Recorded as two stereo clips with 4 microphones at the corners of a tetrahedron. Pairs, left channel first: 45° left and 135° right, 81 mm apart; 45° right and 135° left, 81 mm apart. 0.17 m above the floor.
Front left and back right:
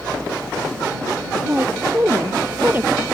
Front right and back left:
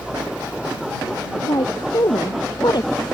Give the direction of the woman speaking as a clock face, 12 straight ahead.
2 o'clock.